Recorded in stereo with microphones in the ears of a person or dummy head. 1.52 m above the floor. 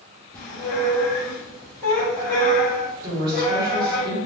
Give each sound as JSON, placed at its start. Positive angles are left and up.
{"t": 0.3, "sound": "a squeak", "side_deg": 15, "distance_m": 1.1}
{"t": 3.0, "sound": "a woman speaking", "side_deg": -25, "distance_m": 1.4}